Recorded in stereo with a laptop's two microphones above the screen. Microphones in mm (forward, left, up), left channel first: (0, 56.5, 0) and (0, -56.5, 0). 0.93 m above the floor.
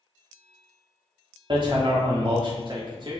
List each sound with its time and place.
1.5 s hammering: 45° right (ahead or behind), 1.2 m